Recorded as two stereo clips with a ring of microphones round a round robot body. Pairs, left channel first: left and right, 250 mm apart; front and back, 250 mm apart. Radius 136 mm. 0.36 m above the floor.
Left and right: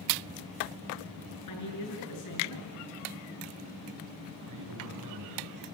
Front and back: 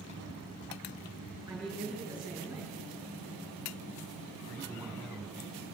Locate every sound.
1.5 s a man speaking: 90° left, 7 m
4.5 s a man speaking: 85° right, 3.5 m